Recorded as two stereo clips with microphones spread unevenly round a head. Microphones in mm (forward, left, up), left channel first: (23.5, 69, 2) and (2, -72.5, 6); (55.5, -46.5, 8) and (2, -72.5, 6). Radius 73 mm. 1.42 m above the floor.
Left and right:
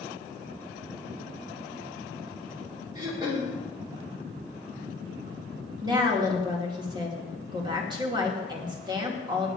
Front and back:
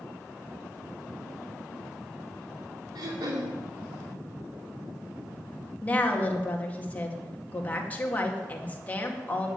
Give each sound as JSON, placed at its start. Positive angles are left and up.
{"t": 3.0, "sound": "throat clearing", "azimuth_deg": -165, "distance_m": 2.5}
{"t": 5.8, "sound": "a woman speaking", "azimuth_deg": -35, "distance_m": 2.5}